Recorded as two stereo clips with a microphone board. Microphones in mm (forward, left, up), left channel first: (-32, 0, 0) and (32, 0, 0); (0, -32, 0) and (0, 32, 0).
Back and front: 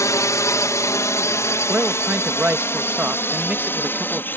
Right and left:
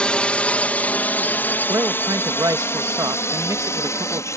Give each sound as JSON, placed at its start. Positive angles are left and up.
{"t": 0.0, "sound": "a drone", "azimuth_deg": -160}
{"t": 1.7, "sound": "a man speaking", "azimuth_deg": 65}